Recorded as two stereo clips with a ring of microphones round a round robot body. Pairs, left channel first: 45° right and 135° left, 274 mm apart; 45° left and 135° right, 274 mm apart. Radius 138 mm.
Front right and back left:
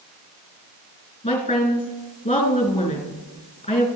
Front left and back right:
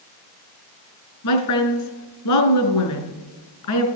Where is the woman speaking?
25° left, 3 m.